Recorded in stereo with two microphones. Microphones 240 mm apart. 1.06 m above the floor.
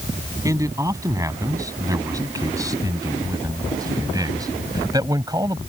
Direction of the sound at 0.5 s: 15° right (ahead or behind).